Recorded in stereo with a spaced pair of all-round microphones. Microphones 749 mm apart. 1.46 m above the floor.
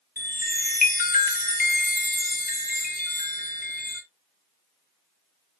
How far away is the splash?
I don't hear a splash.